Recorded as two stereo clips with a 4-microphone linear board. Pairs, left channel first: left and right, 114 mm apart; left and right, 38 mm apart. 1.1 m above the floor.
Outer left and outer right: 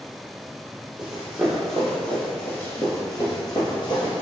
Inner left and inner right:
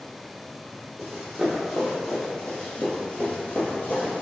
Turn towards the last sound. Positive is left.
turn(degrees=50)  # may be behind; listen again after turning